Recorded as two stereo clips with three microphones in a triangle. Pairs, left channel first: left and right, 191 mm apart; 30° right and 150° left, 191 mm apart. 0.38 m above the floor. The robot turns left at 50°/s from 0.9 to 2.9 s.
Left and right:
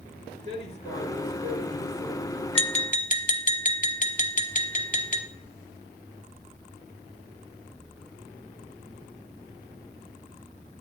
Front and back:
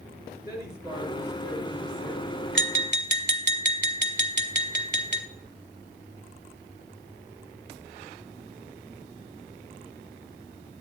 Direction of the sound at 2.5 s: 150° left.